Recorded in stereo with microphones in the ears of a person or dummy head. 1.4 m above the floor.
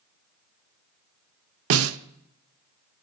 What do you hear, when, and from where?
1.7 s a snare drum: 80° right, 0.6 m